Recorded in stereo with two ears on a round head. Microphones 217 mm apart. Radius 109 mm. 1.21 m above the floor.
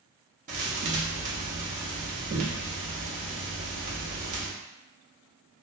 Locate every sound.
0.5 s a thud: 30° right (ahead or behind), 0.7 m